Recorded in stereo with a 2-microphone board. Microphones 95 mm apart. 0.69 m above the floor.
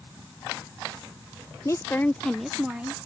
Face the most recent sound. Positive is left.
turn(degrees=-15)  # may be behind; listen again after turning